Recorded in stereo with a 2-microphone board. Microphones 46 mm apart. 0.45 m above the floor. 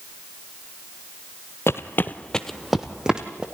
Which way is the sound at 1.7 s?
70° left (ahead or behind).